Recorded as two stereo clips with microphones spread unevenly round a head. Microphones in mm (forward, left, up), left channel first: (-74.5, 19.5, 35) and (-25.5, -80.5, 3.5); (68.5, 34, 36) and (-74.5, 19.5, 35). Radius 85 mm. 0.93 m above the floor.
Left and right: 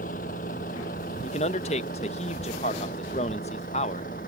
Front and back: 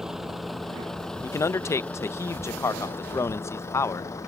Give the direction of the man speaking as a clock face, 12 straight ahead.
10 o'clock.